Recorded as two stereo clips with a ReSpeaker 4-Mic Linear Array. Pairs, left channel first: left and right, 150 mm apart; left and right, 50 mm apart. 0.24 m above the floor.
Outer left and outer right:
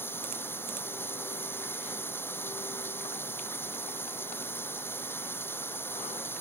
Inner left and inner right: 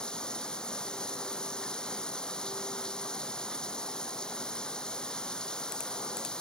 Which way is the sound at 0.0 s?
15° left (ahead or behind).